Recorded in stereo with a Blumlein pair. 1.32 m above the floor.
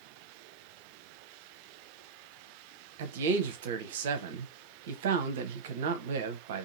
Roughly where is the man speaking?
Ahead right.